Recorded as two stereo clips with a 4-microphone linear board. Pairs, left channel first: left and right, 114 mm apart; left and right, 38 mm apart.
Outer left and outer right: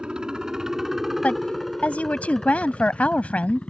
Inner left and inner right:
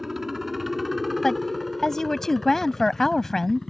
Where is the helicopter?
10° right (ahead or behind); by 3.7 s 10° left (ahead or behind).